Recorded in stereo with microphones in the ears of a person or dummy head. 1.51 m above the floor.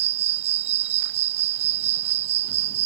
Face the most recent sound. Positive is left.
turn(degrees=-40)  # may be behind; listen again after turning